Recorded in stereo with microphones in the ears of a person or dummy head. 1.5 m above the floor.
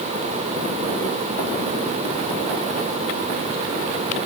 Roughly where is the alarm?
I don't hear an alarm.